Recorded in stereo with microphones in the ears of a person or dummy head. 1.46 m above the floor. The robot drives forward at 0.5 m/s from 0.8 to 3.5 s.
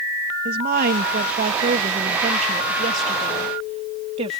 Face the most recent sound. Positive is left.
turn(degrees=-30)  # may be behind; listen again after turning